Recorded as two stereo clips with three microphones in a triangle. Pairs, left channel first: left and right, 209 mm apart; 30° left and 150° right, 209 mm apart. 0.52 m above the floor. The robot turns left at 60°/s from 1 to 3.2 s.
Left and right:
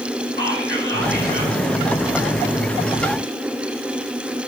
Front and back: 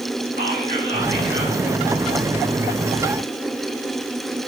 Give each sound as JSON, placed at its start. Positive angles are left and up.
{"t": 0.4, "sound": "whispering", "azimuth_deg": -115, "distance_m": 4.0}